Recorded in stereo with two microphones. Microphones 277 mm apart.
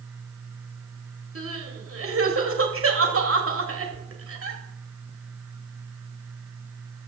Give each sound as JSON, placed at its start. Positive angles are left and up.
{"t": 1.4, "sound": "crying", "side_deg": -50, "distance_m": 1.9}